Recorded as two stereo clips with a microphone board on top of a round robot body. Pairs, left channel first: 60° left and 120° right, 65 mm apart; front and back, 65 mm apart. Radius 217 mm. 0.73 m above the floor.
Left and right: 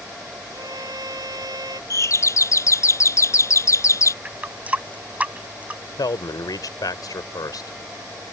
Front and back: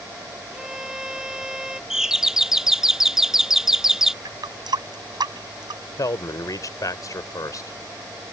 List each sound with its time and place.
0.5 s a violin: 100° right
1.9 s a doorbell: 95° left
4.2 s a running tap: 170° left
6.0 s a man speaking: 35° left